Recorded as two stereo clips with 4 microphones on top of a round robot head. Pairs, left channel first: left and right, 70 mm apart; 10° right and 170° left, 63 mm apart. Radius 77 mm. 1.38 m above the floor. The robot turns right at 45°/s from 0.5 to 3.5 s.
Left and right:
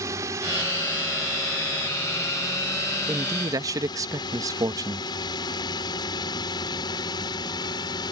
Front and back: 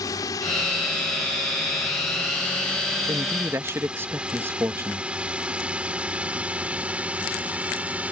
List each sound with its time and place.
0.0 s a drone: 40° right; by 8.1 s 105° left
3.1 s a man speaking: 145° right; by 5.1 s 125° right